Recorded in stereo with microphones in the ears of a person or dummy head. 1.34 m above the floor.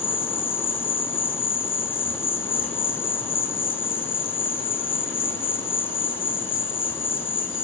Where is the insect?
15° left (ahead or behind), 0.9 m.